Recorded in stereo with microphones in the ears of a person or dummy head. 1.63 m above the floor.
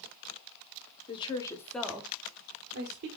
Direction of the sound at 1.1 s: 30° left (ahead or behind).